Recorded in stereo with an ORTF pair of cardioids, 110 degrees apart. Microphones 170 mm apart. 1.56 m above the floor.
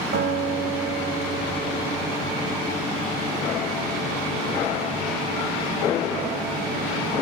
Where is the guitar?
65° right, 2.5 m.